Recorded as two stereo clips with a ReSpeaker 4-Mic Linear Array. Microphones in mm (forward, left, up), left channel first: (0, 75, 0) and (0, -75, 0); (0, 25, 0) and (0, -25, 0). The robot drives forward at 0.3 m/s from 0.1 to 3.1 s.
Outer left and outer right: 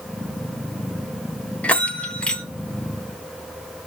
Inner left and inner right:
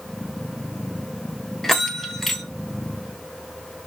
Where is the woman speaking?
I don't hear a woman speaking.